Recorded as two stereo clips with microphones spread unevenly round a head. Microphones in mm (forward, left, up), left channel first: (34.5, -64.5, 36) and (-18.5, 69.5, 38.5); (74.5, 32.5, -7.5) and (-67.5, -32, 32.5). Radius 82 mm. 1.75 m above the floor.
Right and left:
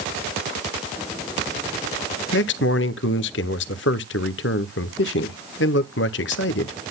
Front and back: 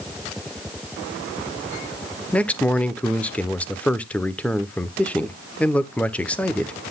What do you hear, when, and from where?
2.3 s a man speaking: 65° right, 0.8 m